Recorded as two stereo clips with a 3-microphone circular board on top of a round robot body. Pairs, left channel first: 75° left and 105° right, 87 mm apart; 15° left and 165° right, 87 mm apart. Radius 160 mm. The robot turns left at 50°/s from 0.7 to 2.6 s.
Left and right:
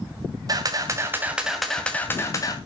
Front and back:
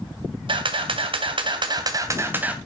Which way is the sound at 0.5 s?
150° right.